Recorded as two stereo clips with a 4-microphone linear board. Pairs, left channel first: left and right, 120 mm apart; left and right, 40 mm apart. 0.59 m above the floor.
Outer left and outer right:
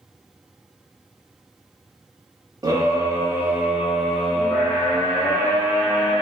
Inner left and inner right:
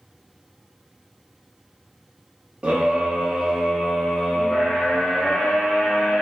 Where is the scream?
30° right (ahead or behind), 1.0 m; by 6.2 s 20° left (ahead or behind), 1.7 m.